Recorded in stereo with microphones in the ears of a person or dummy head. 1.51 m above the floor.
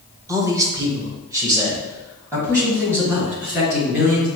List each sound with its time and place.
0.3 s a man speaking: 15° right (ahead or behind), 0.7 m